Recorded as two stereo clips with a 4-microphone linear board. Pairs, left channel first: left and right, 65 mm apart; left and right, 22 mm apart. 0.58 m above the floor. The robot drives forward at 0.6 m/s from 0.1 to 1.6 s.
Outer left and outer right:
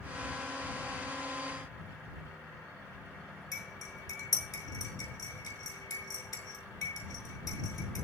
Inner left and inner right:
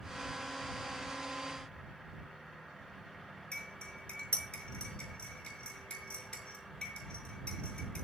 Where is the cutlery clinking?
75° left (ahead or behind), 6 m.